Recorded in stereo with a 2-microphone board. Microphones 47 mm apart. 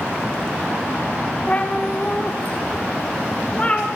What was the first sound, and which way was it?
A cat meowing, 25° left (ahead or behind).